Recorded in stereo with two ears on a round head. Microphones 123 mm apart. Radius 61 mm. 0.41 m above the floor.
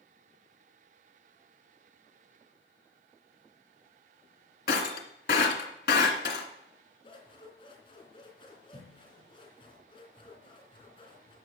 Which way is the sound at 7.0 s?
40° left (ahead or behind).